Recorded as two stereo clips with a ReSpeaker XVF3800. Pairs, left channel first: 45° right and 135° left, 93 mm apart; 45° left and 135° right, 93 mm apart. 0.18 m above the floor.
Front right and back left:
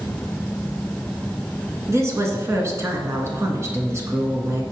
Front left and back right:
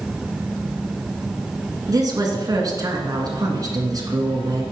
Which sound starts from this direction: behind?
A woman speaking, at 1.9 s.